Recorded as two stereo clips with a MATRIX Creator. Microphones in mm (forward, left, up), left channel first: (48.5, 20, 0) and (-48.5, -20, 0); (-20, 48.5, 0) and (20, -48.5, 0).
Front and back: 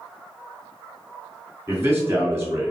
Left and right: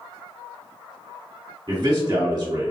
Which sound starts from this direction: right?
A man speaking, at 1.7 s.